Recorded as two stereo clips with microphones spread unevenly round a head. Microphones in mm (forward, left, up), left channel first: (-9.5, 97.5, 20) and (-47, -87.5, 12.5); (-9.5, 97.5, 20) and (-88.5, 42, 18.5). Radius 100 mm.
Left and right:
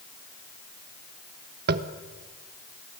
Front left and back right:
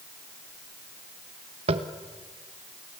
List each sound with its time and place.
1.7 s tapping: 130° right, 1.2 m